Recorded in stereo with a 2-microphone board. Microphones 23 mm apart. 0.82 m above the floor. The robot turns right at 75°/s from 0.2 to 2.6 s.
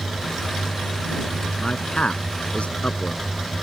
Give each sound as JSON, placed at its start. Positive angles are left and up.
{"t": 1.6, "sound": "a man speaking", "side_deg": 25}